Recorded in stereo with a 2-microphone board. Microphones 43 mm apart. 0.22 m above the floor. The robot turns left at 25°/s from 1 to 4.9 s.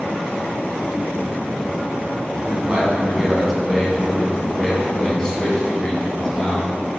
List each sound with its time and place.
2.5 s a man speaking: 140° right, 2 m; by 6.7 s 160° left, 2 m